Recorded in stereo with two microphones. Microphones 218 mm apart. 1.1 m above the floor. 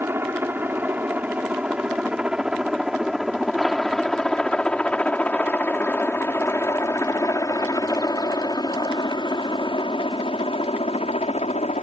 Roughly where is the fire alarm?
I don't hear a fire alarm.